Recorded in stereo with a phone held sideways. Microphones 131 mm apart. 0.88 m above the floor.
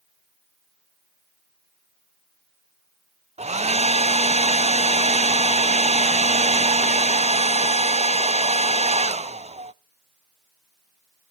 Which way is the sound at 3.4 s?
60° right (ahead or behind).